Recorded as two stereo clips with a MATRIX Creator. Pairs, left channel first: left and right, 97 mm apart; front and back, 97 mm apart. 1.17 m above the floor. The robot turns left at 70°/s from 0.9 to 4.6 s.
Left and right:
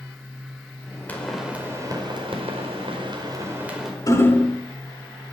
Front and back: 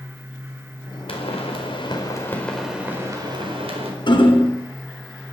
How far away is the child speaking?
No child speaking in this recording.